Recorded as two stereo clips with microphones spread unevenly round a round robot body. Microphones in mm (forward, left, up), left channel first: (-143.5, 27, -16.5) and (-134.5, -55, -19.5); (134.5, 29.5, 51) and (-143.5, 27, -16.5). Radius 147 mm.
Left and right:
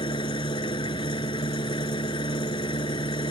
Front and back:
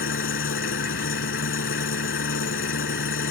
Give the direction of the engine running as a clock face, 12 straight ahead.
10 o'clock.